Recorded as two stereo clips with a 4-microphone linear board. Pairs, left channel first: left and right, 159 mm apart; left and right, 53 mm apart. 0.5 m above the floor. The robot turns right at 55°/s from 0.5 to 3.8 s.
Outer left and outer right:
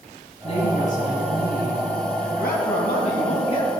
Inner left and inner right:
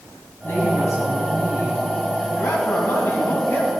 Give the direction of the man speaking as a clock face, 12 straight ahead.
9 o'clock.